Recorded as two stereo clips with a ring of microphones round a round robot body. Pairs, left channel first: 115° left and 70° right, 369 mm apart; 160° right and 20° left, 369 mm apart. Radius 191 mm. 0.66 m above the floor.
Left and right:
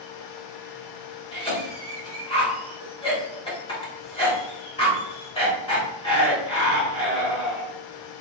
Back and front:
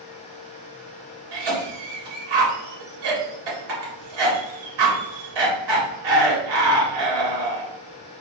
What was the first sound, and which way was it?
A cough, 35° left.